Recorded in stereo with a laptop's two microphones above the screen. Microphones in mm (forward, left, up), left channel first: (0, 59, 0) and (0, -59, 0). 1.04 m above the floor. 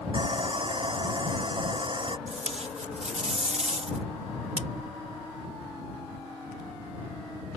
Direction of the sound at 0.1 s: 45° right (ahead or behind).